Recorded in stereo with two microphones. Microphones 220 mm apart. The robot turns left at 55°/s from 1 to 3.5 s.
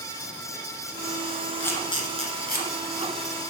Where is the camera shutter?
10° left (ahead or behind), 1.5 m; by 2.7 s 45° left (ahead or behind), 1.5 m.